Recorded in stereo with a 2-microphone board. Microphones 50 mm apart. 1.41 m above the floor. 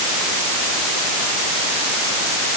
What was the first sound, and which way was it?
Only background noise.